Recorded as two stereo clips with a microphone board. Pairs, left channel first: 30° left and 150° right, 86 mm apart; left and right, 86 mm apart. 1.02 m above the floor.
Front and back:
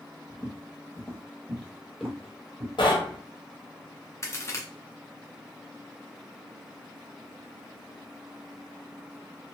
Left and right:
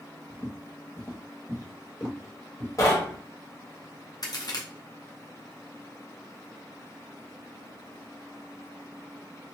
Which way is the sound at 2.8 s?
40° left.